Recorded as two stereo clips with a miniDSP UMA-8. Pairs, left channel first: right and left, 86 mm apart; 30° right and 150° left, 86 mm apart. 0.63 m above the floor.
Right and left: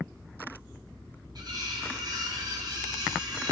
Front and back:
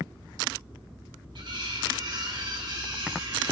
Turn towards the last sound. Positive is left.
turn(degrees=125)